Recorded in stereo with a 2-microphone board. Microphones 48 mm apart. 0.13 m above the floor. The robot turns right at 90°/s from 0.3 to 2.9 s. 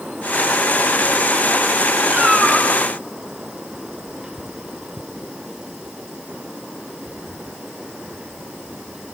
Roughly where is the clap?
I don't hear a clap.